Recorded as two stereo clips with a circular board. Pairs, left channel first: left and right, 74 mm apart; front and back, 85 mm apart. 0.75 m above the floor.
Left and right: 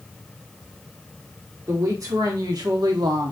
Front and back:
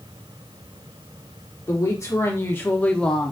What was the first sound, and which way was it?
A woman speaking, 50° right.